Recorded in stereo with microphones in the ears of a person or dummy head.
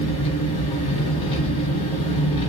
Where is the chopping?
I don't hear chopping.